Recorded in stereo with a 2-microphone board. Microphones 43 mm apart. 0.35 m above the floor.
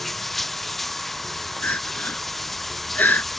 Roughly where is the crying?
Left.